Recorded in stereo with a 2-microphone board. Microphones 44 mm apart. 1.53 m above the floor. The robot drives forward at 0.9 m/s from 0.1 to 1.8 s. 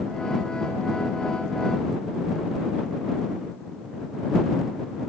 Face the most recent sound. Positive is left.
No sound to turn to.